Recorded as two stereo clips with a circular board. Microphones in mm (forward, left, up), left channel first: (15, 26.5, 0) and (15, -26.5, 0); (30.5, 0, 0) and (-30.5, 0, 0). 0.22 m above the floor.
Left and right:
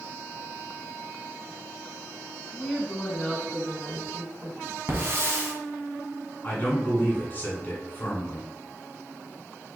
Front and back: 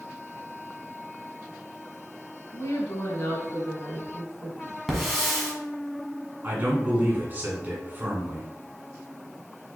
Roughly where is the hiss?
Right.